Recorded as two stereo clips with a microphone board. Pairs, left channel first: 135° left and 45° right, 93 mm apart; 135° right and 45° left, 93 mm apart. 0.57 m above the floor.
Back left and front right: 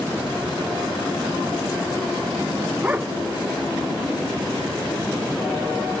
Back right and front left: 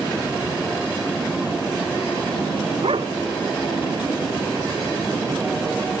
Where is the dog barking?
25° left.